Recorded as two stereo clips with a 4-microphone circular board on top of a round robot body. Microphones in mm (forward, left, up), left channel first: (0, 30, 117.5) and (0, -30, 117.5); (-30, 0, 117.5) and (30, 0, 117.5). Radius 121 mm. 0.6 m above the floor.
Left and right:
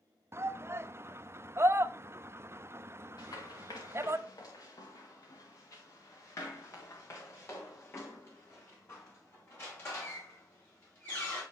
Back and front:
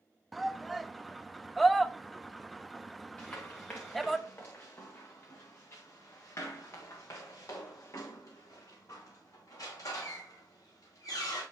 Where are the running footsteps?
110° left, 2.5 m; by 11.4 s 145° left, 6.5 m.